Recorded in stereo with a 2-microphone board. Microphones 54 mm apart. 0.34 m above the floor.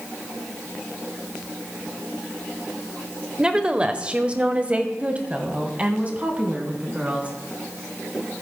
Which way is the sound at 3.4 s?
15° right (ahead or behind).